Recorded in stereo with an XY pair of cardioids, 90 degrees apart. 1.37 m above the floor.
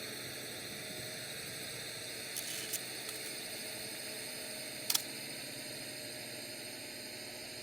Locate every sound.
0.0 s a drone: 15° right
2.4 s a camera shutter: 30° right